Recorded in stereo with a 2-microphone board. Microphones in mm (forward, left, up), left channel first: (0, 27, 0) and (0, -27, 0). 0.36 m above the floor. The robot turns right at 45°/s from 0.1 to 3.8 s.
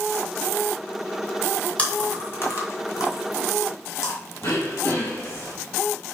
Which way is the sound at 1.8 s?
20° left (ahead or behind).